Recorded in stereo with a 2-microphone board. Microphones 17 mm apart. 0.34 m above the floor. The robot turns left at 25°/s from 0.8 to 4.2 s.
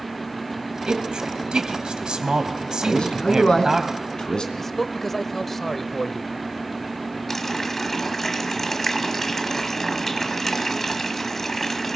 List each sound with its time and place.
0.9 s a man speaking: 55° right (ahead or behind), 2.5 m; by 3.8 s 25° right (ahead or behind), 2.5 m
2.8 s a man speaking: 90° left, 3 m; by 4.5 s 55° left, 3 m
4.6 s a man speaking: 15° left (ahead or behind), 1.2 m
7.3 s a running tap: 20° left (ahead or behind), 1.5 m